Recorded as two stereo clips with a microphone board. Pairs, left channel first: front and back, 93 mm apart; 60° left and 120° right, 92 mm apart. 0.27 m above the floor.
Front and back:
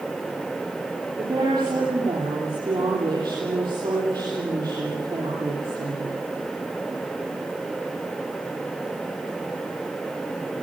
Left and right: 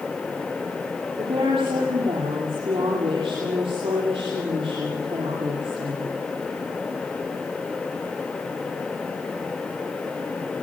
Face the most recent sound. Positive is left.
turn(degrees=-135)